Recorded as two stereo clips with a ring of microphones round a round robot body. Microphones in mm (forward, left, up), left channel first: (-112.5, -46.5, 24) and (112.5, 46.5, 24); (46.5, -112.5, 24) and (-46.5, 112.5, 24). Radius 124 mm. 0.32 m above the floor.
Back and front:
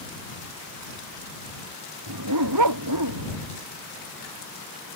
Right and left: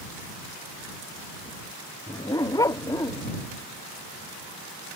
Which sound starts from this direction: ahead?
A dog barking, at 2.1 s.